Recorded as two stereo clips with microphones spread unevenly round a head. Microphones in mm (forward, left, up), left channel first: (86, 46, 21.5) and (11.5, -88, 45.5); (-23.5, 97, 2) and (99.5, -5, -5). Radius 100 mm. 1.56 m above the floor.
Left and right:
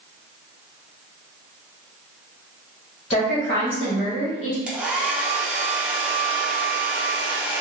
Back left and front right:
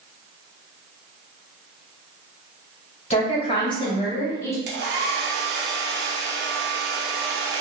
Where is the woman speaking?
90° left, 1.8 m; by 4.6 s 65° left, 2 m.